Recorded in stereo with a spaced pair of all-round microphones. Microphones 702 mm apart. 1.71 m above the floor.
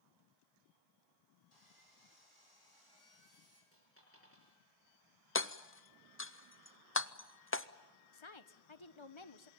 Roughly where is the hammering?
Centre.